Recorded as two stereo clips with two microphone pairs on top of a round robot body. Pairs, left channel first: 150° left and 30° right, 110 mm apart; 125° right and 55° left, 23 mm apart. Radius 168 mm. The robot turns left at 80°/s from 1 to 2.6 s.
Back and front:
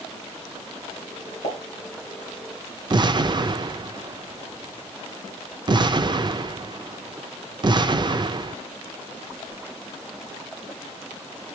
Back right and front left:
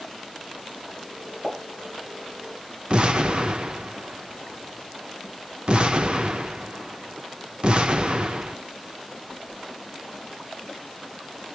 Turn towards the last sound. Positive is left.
turn(degrees=15)